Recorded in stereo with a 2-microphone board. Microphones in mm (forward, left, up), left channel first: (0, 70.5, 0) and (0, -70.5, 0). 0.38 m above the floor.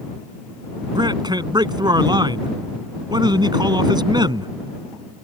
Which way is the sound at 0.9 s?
30° right (ahead or behind).